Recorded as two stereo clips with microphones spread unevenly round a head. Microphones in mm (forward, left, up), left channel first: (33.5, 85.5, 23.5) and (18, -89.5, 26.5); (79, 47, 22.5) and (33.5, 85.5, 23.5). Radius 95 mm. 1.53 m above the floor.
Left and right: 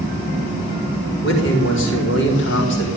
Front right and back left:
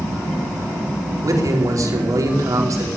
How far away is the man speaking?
About 4.5 m.